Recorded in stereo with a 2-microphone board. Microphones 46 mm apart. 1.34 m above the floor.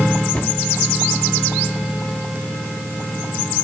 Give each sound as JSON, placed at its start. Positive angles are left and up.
{"t": 0.3, "sound": "a cupboard door", "side_deg": 35, "distance_m": 2.0}